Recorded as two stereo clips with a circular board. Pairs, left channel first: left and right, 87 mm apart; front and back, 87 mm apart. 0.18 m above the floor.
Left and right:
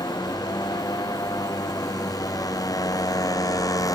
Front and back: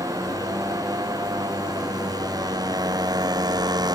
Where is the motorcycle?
130° left; by 4.0 s 140° left.